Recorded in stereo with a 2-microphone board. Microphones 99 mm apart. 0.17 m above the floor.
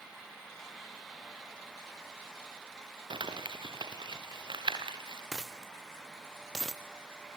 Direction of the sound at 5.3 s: Centre (ahead or behind).